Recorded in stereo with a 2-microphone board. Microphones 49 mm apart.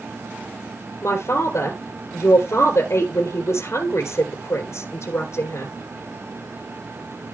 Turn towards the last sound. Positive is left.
turn(degrees=65)  # may be behind; listen again after turning